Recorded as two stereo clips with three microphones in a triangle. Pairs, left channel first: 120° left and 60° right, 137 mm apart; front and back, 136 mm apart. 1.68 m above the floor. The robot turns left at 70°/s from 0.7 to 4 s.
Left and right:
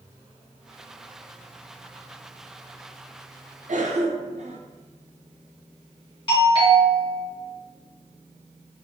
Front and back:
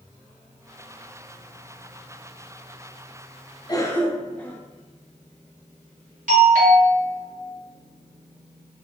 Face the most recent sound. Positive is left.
turn(degrees=170)